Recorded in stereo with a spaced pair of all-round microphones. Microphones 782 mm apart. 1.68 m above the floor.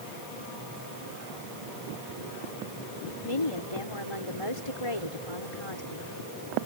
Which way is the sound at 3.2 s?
40° left (ahead or behind).